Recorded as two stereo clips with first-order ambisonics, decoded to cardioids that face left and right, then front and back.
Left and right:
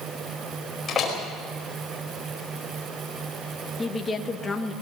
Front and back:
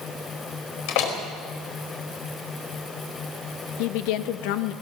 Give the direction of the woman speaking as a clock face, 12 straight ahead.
12 o'clock.